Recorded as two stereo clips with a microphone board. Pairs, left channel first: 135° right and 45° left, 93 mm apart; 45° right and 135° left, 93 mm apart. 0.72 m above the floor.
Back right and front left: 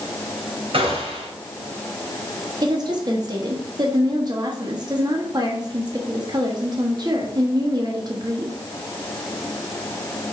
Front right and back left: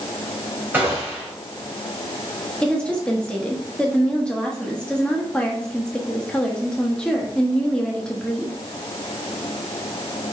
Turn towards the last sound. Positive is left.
turn(degrees=30)